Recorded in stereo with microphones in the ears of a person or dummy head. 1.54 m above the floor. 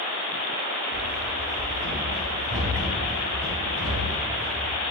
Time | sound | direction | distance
0.9 | running footsteps | 70° right (ahead or behind) | 4 m